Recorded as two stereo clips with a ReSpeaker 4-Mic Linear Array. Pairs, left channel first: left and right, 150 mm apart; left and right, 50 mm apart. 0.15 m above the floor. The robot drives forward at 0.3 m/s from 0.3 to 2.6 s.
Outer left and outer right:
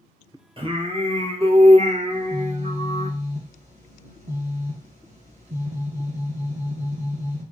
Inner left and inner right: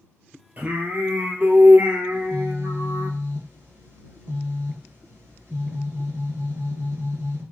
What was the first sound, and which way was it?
Singing, 35° right (ahead or behind).